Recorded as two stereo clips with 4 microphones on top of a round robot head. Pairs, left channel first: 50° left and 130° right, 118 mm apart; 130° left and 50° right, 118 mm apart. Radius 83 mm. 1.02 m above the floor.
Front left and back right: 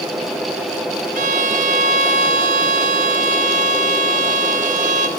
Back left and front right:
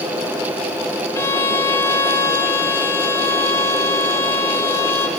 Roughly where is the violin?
Behind.